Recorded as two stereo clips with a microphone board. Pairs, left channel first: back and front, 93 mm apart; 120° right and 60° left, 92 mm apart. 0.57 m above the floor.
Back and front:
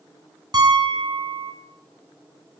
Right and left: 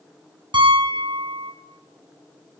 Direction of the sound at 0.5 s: 45° left.